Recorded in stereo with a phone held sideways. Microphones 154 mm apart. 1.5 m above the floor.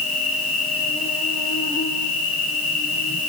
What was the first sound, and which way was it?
An insect, 65° left (ahead or behind).